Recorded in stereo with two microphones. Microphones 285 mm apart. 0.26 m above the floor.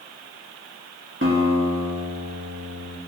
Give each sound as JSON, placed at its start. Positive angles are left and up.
{"t": 1.2, "sound": "a guitar", "side_deg": -45, "distance_m": 0.7}